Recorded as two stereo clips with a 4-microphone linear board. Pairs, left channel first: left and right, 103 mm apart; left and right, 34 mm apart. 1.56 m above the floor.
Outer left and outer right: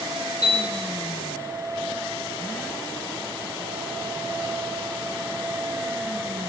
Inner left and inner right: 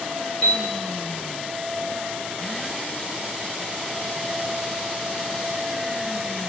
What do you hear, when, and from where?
0.4 s a piano: 30° left (ahead or behind), 1.7 m